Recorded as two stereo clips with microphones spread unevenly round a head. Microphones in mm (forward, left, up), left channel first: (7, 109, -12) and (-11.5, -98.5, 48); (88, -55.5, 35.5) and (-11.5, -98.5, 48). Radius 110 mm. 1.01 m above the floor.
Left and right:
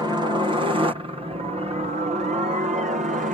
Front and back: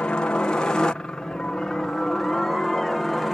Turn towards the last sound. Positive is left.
turn(degrees=-55)